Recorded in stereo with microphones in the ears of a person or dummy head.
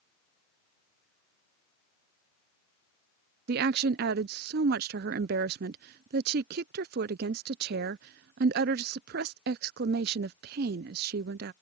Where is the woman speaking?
55° right (ahead or behind).